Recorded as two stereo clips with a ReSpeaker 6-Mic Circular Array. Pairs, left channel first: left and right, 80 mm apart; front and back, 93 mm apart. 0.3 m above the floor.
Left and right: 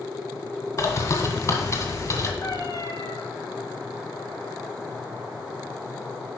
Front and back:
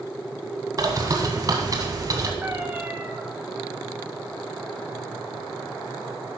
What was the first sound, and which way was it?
A bird, 135° left.